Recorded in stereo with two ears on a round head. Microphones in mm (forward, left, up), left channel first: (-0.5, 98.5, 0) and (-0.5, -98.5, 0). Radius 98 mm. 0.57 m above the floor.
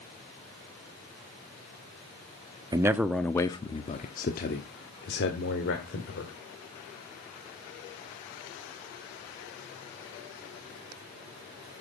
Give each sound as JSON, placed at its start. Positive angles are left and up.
{"t": 2.7, "sound": "a man speaking", "side_deg": -15, "distance_m": 0.8}